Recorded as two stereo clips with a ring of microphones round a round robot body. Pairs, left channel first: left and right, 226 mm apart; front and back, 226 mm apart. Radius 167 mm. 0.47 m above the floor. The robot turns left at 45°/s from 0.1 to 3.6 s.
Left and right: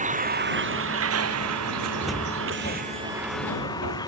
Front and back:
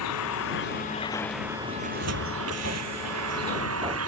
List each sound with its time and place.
0.0 s a vehicle: 35° right; by 4.1 s 170° left
1.8 s a cupboard door: 170° right; by 4.0 s 115° left